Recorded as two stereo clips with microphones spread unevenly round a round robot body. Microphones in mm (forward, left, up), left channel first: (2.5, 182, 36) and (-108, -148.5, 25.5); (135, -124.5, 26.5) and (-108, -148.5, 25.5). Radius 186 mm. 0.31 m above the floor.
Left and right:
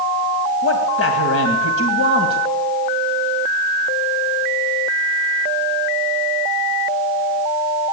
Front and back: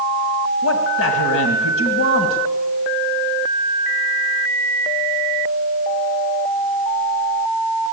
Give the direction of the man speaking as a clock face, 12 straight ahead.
11 o'clock.